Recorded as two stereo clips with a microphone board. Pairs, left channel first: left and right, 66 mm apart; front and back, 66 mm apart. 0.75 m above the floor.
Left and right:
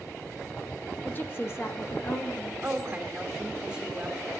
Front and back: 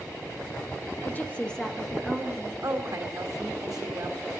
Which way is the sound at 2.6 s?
165° right.